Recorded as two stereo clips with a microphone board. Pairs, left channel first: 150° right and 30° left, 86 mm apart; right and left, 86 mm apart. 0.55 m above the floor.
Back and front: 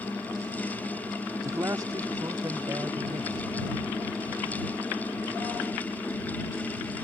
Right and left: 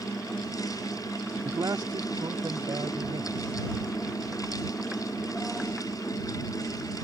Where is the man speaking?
65° left.